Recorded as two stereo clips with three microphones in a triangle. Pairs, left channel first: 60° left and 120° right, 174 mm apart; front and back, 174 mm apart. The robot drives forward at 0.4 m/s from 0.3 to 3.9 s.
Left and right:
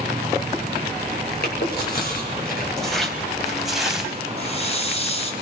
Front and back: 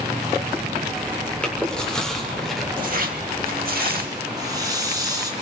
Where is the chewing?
85° left, 5.5 m; by 2.7 s 90° left, 5.5 m.